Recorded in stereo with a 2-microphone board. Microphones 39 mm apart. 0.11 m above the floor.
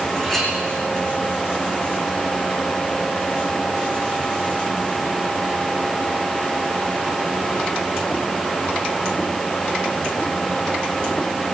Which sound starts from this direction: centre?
A clink, at 0.2 s.